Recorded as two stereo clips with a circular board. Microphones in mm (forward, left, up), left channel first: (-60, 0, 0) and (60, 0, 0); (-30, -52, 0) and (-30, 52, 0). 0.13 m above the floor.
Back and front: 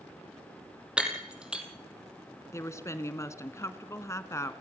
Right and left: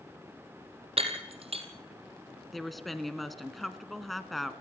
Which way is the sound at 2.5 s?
175° right.